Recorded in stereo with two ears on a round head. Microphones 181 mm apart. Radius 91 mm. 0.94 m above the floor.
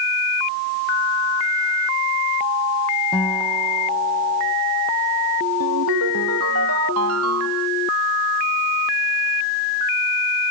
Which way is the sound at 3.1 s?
5° left (ahead or behind).